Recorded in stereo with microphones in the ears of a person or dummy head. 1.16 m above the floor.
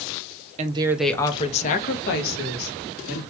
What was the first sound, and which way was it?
A woman speaking, 35° right (ahead or behind).